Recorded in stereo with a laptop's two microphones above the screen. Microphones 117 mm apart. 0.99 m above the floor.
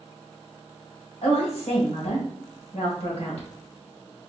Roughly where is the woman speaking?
Left.